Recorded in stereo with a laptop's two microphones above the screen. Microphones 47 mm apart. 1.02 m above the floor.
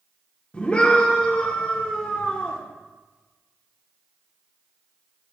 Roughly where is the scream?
Left.